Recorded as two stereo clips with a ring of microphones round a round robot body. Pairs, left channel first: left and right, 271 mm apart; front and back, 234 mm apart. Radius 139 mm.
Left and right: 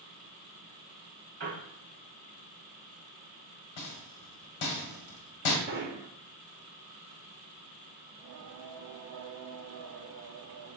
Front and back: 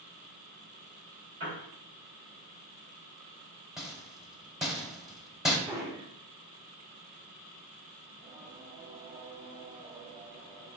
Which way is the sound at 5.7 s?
110° right.